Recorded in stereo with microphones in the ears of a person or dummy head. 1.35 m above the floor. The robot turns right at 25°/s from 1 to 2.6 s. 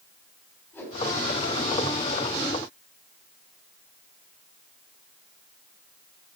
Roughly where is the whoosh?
Centre.